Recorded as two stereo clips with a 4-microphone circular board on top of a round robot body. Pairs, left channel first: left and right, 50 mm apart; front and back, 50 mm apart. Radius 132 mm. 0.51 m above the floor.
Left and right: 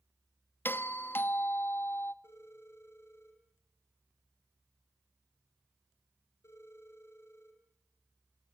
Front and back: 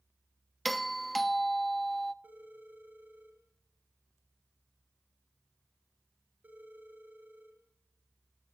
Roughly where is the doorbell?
Left.